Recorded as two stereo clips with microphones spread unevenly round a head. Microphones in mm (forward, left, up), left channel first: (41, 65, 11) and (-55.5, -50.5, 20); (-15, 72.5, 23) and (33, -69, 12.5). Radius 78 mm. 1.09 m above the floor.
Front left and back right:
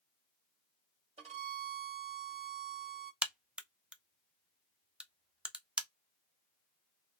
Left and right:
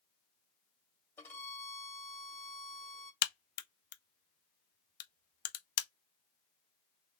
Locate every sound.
1.2 s a violin: 175° right, 1.8 m
3.2 s a crack: 145° left, 0.6 m